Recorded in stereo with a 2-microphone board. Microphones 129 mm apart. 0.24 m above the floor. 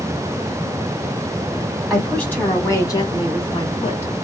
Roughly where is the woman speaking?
Centre.